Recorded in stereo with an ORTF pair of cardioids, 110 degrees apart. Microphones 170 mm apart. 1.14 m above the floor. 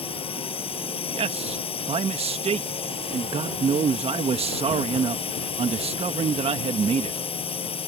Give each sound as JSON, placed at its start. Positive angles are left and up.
{"t": 0.0, "sound": "a drone", "azimuth_deg": 35}
{"t": 1.1, "sound": "a man speaking", "azimuth_deg": -35}